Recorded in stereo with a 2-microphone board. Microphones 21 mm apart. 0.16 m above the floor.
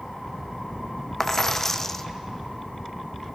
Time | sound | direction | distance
1.2 | a dropped coin | 20° left (ahead or behind) | 0.7 m